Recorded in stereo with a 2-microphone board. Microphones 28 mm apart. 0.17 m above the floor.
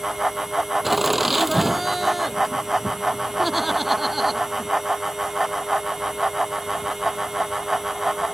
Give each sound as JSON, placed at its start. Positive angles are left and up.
{"t": 0.8, "sound": "laughter", "side_deg": -5}